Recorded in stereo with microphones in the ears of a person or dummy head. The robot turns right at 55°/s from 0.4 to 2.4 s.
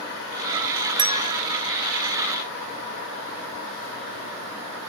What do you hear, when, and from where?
1.0 s a bell: 20° right (ahead or behind); by 1.4 s 40° right (ahead or behind)